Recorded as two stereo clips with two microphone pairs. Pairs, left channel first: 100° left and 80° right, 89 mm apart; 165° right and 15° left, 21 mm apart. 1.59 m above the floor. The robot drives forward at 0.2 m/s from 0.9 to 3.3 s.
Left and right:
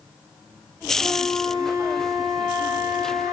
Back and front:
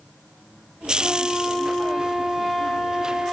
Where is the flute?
75° right, 1.9 m; by 3.3 s 95° right, 1.9 m.